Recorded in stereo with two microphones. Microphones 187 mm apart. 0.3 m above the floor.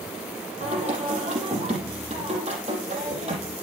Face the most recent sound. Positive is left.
turn(degrees=-35)  # may be behind; listen again after turning